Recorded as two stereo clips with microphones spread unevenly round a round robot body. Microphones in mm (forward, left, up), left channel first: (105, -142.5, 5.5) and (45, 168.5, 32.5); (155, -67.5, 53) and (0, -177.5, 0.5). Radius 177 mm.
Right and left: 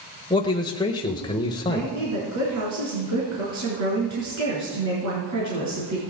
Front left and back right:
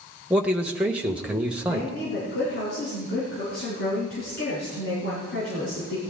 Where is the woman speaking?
70° left, 4.5 m.